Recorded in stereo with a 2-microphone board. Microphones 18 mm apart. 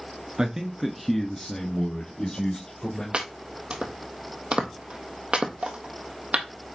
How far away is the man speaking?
About 1.4 m.